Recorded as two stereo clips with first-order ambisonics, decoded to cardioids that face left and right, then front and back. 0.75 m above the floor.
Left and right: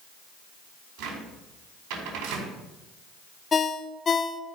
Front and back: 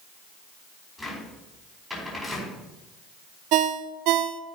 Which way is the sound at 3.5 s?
160° left.